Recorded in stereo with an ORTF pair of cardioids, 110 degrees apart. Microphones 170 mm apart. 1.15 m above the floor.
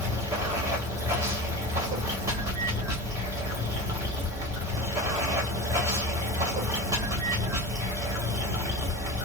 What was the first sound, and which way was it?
Running water, 20° right.